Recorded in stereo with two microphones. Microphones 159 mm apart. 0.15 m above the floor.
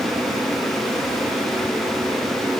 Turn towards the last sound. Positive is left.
No sound to turn to.